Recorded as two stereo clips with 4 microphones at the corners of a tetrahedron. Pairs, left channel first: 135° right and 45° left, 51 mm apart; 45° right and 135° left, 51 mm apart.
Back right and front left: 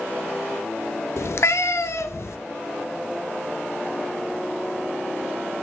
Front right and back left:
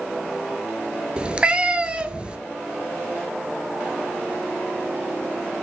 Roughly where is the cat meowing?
Behind right.